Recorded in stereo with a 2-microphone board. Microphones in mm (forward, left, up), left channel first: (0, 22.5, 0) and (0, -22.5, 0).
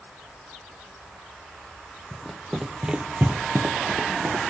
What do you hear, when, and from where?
2.1 s running footsteps: 10° left (ahead or behind), 0.8 m; by 4.4 s 75° right (ahead or behind), 0.9 m